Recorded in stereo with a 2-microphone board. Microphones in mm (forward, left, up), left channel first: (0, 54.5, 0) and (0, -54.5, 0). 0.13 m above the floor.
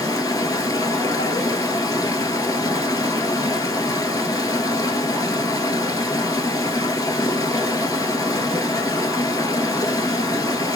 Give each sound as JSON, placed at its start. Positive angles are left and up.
{"t": 0.0, "sound": "running water", "side_deg": 30, "distance_m": 1.0}